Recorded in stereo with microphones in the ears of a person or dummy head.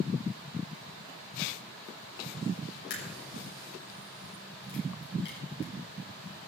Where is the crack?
65° left (ahead or behind), 7 m.